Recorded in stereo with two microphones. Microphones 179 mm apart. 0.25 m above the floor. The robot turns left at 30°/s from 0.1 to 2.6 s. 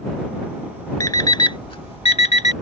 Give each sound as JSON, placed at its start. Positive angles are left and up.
{"t": 1.0, "sound": "an alarm clock", "side_deg": 20}